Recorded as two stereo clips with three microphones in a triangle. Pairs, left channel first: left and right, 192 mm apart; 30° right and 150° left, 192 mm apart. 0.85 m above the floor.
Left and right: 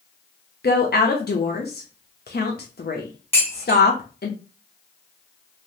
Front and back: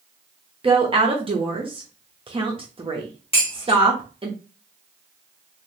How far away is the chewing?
No chewing in this recording.